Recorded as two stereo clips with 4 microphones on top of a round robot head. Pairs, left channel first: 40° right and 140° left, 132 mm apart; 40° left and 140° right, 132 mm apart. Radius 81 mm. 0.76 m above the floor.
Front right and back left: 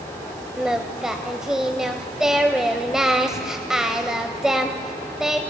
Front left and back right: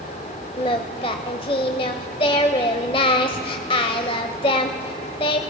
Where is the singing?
55° left, 0.6 m.